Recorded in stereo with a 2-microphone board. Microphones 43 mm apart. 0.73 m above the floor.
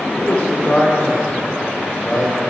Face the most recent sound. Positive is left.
turn(degrees=5)  # may be behind; listen again after turning